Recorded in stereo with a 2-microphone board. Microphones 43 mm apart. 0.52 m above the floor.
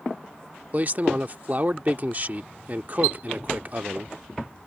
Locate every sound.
0.7 s a man speaking: 40° right (ahead or behind)